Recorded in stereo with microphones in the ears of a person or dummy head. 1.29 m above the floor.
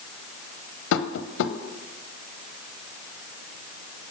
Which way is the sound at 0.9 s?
75° left (ahead or behind).